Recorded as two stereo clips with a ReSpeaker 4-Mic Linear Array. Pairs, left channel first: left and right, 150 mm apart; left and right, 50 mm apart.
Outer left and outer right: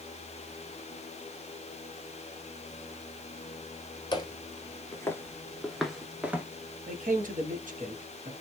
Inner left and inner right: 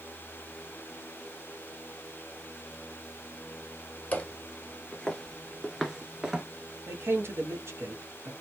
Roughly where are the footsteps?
Left.